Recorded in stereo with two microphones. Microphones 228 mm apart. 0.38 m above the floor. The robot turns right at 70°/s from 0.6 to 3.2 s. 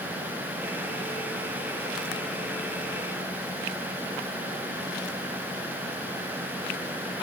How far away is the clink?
No clink in this recording.